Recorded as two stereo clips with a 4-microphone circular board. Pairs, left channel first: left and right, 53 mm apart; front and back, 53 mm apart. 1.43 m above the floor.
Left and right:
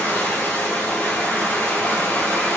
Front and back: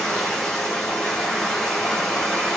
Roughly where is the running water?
Ahead left.